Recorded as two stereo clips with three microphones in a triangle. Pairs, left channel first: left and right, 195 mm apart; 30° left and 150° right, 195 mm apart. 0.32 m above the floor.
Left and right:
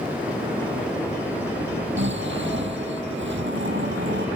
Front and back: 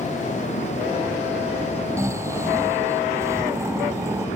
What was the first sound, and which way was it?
Snoring, 75° right.